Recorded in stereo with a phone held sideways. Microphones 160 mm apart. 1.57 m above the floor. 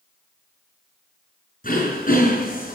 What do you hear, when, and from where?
1.6 s throat clearing: 55° left (ahead or behind), 7 m